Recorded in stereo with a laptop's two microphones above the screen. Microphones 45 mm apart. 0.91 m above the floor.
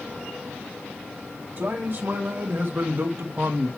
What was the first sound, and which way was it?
A man speaking, 50° right (ahead or behind).